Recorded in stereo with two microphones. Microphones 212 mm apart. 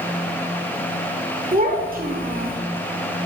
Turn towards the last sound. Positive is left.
turn(degrees=-45)  # may be behind; listen again after turning